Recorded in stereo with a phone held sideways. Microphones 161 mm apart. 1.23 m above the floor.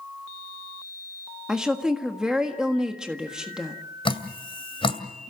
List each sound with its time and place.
1.5 s a woman speaking: 5° right (ahead or behind), 1.6 m
4.0 s dripping: 35° left (ahead or behind), 2 m